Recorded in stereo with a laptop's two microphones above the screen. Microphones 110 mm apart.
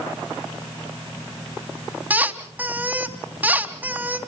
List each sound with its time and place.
2.1 s a squeak: 15° right (ahead or behind), 2.5 m